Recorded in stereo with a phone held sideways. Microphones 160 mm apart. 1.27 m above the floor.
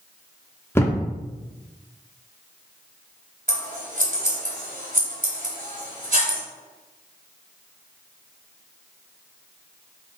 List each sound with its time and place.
0.8 s a thud: 15° left (ahead or behind), 1.4 m
3.5 s scissors: 65° right (ahead or behind), 3 m